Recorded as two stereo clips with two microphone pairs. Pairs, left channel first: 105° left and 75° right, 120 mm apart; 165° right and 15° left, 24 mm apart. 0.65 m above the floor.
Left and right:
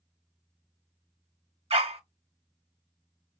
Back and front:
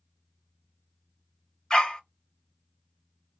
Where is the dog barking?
105° right, 1.0 m.